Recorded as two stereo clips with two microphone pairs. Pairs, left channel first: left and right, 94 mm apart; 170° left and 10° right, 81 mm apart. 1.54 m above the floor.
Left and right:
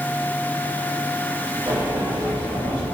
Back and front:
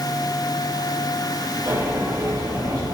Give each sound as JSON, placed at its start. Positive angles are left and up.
{"t": 1.7, "sound": "a sliding door", "azimuth_deg": -10, "distance_m": 4.0}